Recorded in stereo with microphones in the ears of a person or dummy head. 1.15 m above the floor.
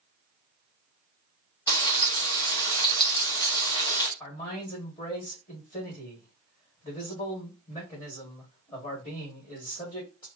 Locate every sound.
1.7 s frying: 20° left (ahead or behind), 0.7 m
4.2 s a man speaking: 20° left (ahead or behind), 1.3 m